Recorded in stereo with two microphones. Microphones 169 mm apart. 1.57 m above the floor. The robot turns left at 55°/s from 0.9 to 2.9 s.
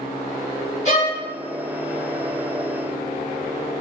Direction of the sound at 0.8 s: 45° left (ahead or behind).